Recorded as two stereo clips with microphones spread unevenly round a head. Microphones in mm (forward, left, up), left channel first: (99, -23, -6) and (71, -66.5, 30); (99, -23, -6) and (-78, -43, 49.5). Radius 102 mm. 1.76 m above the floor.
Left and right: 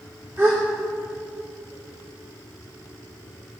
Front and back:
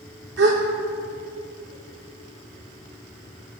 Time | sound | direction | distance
0.4 | a gasp | 155° left | 2.5 m